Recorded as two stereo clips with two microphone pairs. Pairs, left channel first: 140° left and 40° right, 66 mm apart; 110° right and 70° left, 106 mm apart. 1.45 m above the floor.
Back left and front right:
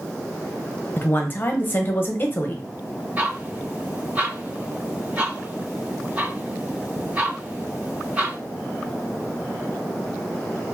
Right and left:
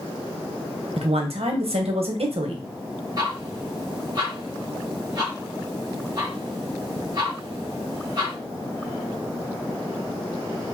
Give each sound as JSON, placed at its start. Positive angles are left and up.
{"t": 1.0, "sound": "a woman speaking", "azimuth_deg": 85, "distance_m": 0.9}
{"t": 3.2, "sound": "ticking", "azimuth_deg": 25, "distance_m": 1.7}